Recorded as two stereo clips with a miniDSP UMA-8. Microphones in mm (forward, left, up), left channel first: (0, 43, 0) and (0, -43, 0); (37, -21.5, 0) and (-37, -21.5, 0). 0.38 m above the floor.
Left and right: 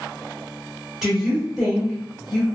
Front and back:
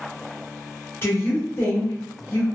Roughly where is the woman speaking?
Ahead.